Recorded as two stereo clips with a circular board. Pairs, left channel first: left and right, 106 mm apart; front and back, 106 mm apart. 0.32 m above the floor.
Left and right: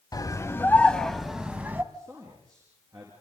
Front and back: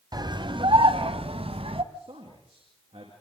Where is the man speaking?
145° right, 6 m.